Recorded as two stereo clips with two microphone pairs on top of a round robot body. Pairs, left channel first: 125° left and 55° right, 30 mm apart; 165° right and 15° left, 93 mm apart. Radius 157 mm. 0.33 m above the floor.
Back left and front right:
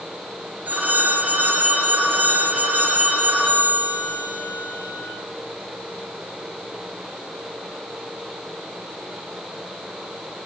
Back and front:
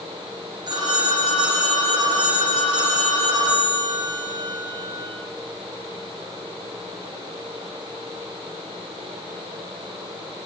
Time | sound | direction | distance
0.7 | a phone ringing | 30° right | 7 m